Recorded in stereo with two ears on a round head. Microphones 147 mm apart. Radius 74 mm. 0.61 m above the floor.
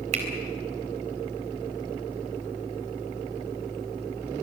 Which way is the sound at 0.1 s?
40° right (ahead or behind).